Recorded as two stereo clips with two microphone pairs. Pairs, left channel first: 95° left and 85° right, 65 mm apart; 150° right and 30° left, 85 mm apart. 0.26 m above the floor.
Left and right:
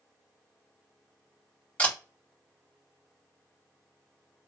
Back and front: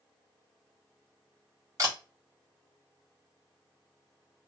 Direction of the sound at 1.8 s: 35° left.